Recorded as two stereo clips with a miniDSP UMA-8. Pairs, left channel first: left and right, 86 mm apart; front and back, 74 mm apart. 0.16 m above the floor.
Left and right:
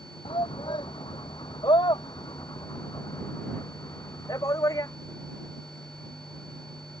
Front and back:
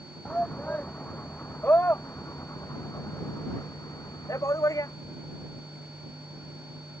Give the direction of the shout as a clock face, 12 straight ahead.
9 o'clock.